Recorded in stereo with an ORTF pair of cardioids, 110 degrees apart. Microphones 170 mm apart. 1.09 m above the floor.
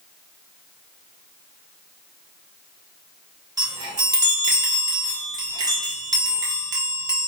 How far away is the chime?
About 1.0 m.